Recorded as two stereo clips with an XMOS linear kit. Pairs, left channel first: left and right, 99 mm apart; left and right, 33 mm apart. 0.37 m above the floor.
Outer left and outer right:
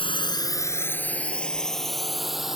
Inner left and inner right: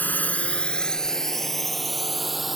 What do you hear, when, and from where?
0.0 s a drone: 60° left (ahead or behind); by 2.6 s 5° right (ahead or behind)